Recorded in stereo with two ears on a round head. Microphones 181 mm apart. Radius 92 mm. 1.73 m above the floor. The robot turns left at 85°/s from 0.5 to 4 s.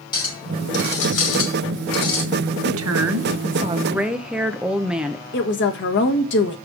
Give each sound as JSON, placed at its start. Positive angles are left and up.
{"t": 0.1, "sound": "a clink", "azimuth_deg": 155, "distance_m": 2.5}
{"t": 2.6, "sound": "a woman speaking", "azimuth_deg": -60, "distance_m": 1.0}
{"t": 5.3, "sound": "a woman speaking", "side_deg": 65, "distance_m": 1.7}